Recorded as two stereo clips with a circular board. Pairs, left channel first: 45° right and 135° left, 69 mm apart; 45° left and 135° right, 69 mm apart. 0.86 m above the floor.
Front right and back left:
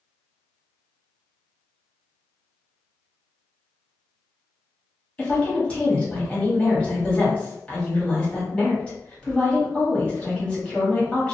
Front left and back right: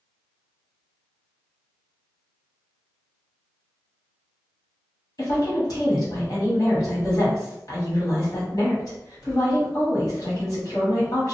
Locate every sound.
5.2 s a woman speaking: 25° left, 1.7 m